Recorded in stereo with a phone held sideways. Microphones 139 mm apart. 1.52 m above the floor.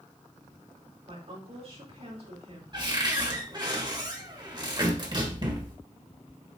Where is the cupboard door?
35° right (ahead or behind), 1.5 m.